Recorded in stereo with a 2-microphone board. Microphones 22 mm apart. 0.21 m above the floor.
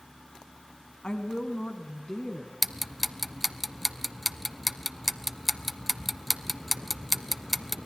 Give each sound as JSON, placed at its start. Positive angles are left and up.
{"t": 1.0, "sound": "a woman speaking", "side_deg": 45, "distance_m": 1.3}
{"t": 2.6, "sound": "ticking", "side_deg": 0, "distance_m": 0.5}